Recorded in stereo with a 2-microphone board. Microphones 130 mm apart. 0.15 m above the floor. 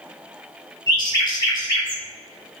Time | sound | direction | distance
0.9 | a bird | 30° left (ahead or behind) | 0.9 m